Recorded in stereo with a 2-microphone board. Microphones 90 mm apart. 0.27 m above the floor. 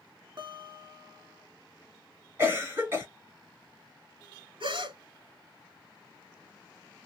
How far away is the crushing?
No crushing in this recording.